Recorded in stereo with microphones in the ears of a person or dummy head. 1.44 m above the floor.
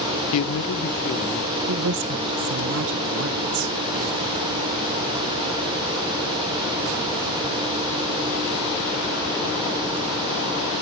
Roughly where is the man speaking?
Left.